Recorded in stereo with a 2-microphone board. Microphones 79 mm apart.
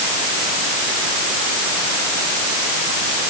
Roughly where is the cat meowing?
No cat meowing in this recording.